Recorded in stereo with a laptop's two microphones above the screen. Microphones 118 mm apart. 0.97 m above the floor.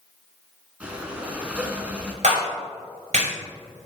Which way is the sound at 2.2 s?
80° right.